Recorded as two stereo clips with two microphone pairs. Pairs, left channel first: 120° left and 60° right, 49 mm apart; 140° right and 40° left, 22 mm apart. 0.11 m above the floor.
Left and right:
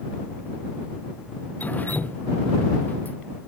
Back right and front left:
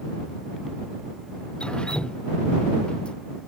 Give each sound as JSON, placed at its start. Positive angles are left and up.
{"t": 1.6, "sound": "dripping", "azimuth_deg": 175}